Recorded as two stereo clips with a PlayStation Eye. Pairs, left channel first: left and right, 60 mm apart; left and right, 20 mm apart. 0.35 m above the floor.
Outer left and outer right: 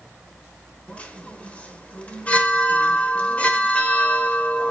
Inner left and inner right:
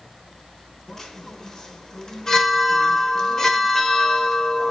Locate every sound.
0.9 s a chime: 25° left (ahead or behind), 1.4 m